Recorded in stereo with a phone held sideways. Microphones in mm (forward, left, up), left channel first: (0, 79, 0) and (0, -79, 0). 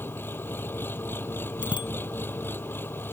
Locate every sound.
0.0 s an engine running: 15° left (ahead or behind)
1.6 s a bicycle bell: 30° left (ahead or behind)